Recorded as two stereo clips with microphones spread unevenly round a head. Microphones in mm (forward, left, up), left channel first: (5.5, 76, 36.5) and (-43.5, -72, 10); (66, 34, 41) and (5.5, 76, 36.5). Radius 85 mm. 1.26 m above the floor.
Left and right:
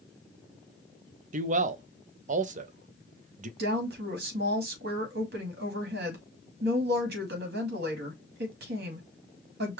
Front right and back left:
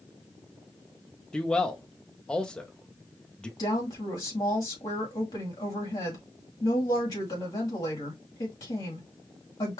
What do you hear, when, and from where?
1.3 s a man speaking: 115° right, 0.7 m
3.6 s a woman speaking: 85° right, 2 m